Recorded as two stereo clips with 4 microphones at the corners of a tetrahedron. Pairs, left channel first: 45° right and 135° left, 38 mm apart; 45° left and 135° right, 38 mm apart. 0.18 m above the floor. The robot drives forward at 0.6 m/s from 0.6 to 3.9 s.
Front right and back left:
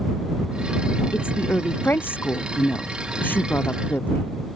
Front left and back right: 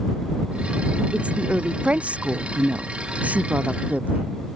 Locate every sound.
1.1 s a woman speaking: 75° right; by 4.3 s 80° right